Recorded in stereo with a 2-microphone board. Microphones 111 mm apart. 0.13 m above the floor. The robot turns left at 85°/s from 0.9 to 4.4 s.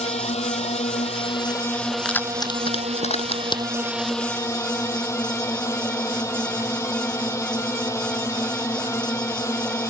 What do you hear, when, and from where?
0.0 s a drone: 90° left; by 9.9 s 155° left
2.0 s keys jangling: 5° left (ahead or behind); by 3.6 s 35° left (ahead or behind)